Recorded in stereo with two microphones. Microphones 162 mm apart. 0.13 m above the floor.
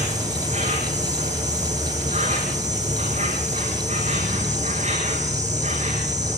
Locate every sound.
0.0 s an insect: 45° right (ahead or behind), 7 m